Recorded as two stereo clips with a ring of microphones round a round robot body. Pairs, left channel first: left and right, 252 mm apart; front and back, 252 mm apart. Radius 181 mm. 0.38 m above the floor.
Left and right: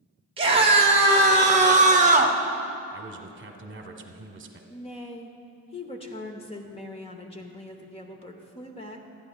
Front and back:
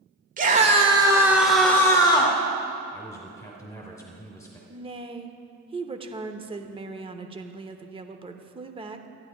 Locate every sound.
0.4 s a scream: 145° right, 1.2 m; by 2.4 s 50° right, 1.2 m
2.9 s a man speaking: 75° right, 1.2 m
4.7 s a woman speaking: 135° left, 0.9 m